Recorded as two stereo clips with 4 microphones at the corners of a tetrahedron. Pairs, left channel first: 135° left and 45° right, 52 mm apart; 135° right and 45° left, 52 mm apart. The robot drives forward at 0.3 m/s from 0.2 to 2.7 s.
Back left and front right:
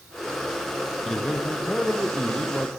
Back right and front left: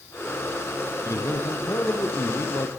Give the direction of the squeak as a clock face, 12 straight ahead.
I don't hear a squeak.